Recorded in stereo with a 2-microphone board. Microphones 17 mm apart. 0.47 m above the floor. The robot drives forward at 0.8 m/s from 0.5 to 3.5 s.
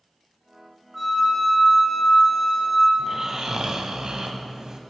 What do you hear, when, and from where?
0.9 s a flute: centre (ahead or behind), 1.2 m
3.0 s snoring: 30° right (ahead or behind), 1.1 m; by 4.8 s 50° right (ahead or behind), 0.8 m